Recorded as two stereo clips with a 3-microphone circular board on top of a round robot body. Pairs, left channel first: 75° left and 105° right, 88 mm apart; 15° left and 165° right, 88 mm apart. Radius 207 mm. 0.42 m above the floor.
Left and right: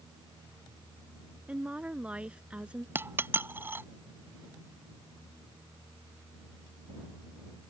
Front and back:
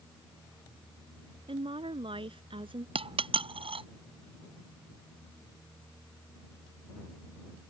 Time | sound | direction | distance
1.5 | a woman speaking | straight behind | ?
3.0 | a dropped coin | 170° right | ?